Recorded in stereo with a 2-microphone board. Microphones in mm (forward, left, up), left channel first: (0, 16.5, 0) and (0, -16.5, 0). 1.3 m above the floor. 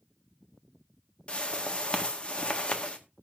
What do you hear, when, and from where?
1.3 s a whoosh: 35° left (ahead or behind), 1.6 m